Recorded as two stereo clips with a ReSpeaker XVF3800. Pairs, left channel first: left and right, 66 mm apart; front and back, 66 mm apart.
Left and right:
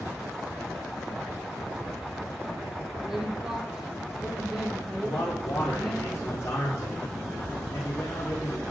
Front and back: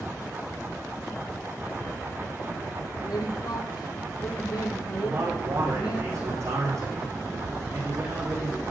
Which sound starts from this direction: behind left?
A man speaking, at 5.0 s.